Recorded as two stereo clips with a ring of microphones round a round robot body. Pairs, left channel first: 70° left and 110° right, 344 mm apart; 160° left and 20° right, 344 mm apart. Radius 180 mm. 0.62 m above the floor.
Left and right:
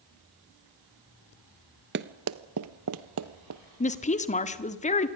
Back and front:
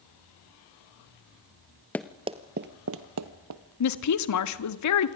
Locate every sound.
1.9 s running footsteps: 125° right, 0.6 m; by 3.6 s 65° right, 1.4 m
3.8 s a woman speaking: 135° left, 1.6 m